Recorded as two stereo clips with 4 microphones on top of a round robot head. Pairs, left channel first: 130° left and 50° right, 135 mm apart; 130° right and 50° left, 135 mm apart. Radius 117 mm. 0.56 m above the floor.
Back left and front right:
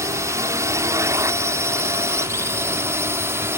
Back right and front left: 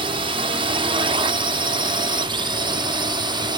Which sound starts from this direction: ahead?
A drone, at 0.0 s.